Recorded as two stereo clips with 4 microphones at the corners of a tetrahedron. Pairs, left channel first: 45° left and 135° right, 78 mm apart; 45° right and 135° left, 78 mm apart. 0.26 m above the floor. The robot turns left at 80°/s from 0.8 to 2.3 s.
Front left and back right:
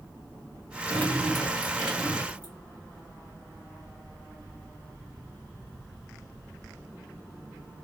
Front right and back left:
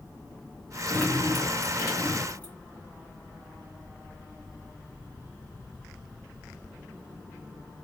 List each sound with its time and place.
0.9 s dripping: 15° left, 1.9 m; by 2.5 s 95° right, 1.9 m